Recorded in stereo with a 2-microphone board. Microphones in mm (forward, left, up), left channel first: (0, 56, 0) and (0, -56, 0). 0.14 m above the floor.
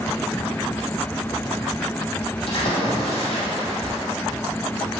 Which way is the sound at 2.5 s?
55° left (ahead or behind).